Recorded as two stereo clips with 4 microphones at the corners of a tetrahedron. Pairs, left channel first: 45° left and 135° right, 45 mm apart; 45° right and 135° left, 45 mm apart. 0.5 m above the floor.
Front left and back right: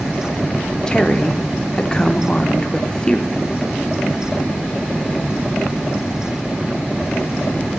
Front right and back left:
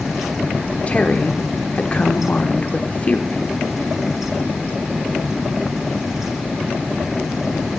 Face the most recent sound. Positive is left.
turn(degrees=-10)